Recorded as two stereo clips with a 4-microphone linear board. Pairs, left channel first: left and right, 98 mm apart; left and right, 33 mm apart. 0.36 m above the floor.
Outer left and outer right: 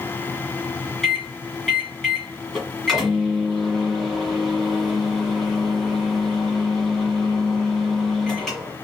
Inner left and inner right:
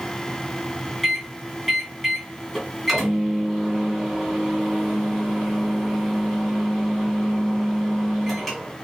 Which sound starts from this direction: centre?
A microwave, at 1.0 s.